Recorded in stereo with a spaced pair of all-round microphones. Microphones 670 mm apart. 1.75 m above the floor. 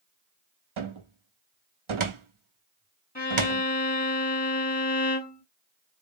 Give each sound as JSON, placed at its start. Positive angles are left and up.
{"t": 0.8, "sound": "a cupboard door", "side_deg": -50, "distance_m": 0.7}
{"t": 3.1, "sound": "a violin", "side_deg": 15, "distance_m": 2.5}